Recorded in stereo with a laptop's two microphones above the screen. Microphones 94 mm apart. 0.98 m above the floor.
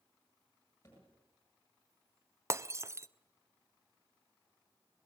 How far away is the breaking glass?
About 0.6 m.